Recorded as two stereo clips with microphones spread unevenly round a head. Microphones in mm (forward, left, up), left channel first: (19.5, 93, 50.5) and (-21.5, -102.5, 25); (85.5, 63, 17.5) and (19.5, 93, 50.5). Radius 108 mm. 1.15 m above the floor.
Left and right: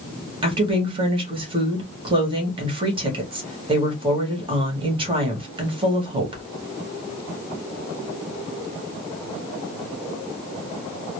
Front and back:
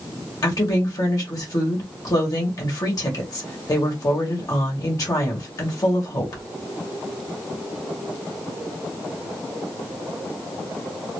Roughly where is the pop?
No pop in this recording.